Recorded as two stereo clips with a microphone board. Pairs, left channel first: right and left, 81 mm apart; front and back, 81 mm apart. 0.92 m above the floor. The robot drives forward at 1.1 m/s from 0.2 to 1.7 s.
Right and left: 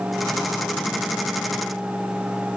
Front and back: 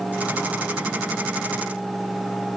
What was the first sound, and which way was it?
Only background noise.